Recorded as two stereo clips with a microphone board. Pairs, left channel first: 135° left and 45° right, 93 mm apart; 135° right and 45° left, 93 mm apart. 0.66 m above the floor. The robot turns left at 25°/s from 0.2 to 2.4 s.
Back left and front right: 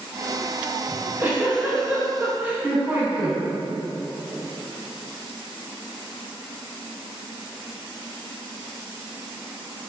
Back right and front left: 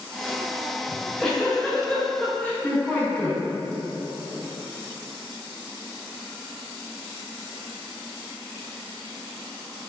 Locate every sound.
0.9 s a giggle: 50° right, 0.5 m; by 3.4 s 85° right, 0.5 m